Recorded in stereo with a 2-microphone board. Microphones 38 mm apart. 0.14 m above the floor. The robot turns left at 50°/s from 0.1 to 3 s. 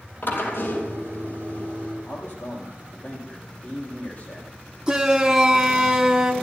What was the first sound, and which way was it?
A drill, 120° left.